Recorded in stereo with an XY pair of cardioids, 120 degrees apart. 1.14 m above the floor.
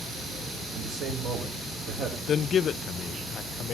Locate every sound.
0.7 s a man speaking: 65° right, 4 m
2.3 s a man speaking: 50° left, 0.5 m